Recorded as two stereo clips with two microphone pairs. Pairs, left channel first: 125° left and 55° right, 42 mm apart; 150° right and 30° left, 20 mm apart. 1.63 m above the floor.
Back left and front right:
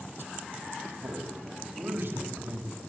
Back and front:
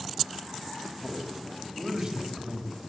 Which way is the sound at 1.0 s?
25° right.